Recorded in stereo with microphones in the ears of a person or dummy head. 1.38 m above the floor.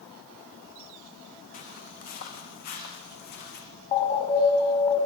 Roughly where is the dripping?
No dripping in this recording.